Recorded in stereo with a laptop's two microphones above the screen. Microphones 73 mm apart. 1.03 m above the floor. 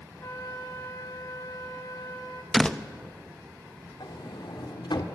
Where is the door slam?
10° left (ahead or behind), 0.8 m.